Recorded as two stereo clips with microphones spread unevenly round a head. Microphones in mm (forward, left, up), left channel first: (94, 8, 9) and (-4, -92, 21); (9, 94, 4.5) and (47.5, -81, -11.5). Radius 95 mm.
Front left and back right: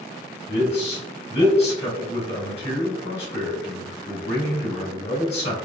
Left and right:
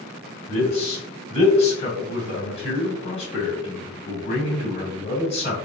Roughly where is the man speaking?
Ahead left.